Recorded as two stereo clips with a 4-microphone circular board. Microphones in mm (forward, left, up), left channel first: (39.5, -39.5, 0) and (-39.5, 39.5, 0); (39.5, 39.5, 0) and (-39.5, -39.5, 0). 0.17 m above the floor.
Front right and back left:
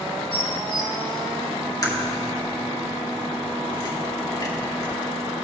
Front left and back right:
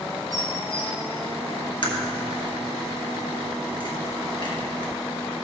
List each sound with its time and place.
0.3 s dishes clattering: 85° right, 2.5 m
1.8 s a crack: 5° left, 2.5 m